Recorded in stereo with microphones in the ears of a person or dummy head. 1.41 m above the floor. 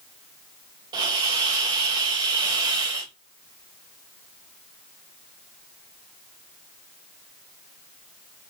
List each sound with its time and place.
0.9 s a hiss: 25° right (ahead or behind), 0.8 m